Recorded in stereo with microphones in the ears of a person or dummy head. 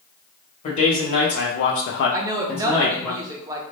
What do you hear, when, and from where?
0.6 s a man speaking: 35° left (ahead or behind), 1.1 m; by 3.1 s 20° left (ahead or behind), 0.9 m
2.1 s a woman speaking: 15° right (ahead or behind), 0.5 m